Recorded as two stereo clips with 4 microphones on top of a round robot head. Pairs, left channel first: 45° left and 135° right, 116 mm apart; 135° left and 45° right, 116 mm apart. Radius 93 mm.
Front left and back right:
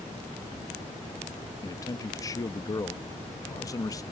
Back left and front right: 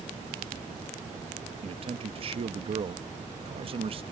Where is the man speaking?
15° right.